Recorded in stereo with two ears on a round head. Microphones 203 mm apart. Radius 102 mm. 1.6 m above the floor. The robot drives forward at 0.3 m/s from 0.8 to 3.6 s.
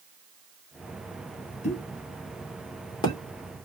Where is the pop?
30° left (ahead or behind), 0.7 m; by 3.2 s 20° left (ahead or behind), 1.1 m.